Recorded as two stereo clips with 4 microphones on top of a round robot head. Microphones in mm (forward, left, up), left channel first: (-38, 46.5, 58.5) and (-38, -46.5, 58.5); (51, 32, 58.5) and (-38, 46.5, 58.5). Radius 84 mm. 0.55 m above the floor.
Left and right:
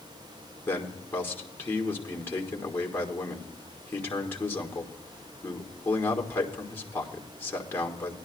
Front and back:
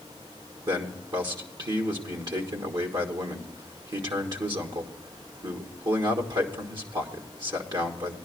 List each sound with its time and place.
0.7 s a man speaking: 150° left, 1.6 m